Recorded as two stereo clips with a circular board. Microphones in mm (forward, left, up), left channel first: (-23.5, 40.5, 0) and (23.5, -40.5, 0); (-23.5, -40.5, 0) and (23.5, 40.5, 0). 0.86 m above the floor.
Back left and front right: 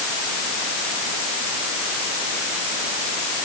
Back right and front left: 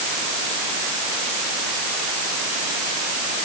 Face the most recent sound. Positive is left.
No sound to turn to.